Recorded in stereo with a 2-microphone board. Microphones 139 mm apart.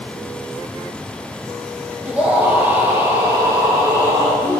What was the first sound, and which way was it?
A scream, 10° right (ahead or behind).